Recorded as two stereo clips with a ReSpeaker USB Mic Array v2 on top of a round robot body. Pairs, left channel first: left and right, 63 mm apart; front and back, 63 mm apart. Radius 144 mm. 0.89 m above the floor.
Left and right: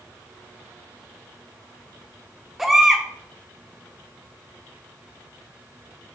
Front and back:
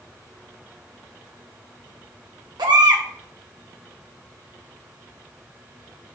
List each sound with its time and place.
2.6 s a baby crying: 175° right, 1.4 m